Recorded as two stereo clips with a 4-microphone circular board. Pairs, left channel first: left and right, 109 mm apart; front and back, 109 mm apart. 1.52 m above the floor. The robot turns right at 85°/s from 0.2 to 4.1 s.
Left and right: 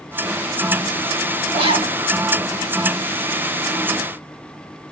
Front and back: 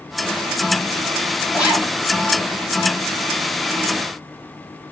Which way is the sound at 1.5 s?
110° right.